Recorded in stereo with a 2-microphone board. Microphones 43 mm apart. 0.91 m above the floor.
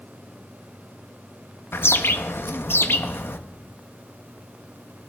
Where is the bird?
65° left (ahead or behind), 0.7 m.